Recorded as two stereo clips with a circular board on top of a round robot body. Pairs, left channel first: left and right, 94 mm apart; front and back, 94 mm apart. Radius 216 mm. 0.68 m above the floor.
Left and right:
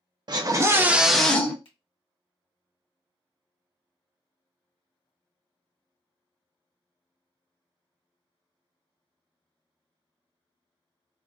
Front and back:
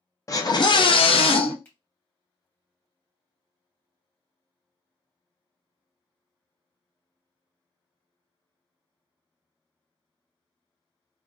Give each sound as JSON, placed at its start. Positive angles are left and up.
{"t": 0.3, "sound": "a scream", "azimuth_deg": -50, "distance_m": 1.0}
{"t": 1.6, "sound": "a finger snap", "azimuth_deg": 70, "distance_m": 1.2}